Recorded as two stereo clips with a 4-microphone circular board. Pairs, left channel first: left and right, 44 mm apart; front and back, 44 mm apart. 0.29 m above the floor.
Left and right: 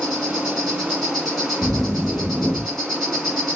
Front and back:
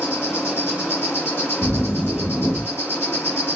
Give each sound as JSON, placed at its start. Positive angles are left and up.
{"t": 0.0, "sound": "an insect", "azimuth_deg": 0, "distance_m": 1.8}
{"t": 1.6, "sound": "a zipper", "azimuth_deg": 0, "distance_m": 3.0}